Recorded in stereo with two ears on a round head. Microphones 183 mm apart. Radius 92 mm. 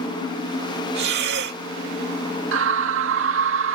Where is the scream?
70° right (ahead or behind).